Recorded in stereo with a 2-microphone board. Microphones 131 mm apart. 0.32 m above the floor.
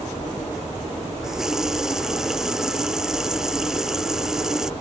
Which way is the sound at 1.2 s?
5° right (ahead or behind).